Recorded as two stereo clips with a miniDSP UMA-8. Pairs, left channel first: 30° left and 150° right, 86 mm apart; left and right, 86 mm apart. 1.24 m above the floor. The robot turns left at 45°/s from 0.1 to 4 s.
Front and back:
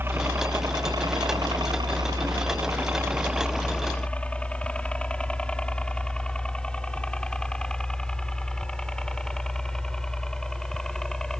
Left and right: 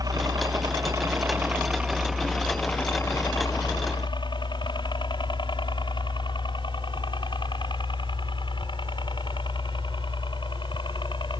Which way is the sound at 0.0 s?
100° right.